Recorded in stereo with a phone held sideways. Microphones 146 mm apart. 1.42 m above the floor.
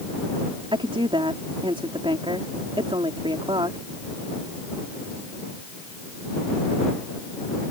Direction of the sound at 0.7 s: 35° right (ahead or behind).